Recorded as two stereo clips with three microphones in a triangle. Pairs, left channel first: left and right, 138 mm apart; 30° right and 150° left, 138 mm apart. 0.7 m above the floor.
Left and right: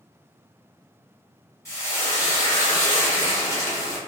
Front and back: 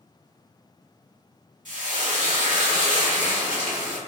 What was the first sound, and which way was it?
Frying, 155° left.